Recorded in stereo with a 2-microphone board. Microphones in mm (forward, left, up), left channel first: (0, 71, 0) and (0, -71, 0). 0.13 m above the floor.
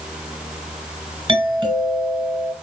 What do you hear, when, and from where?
1.3 s a doorbell: 30° right (ahead or behind), 2 m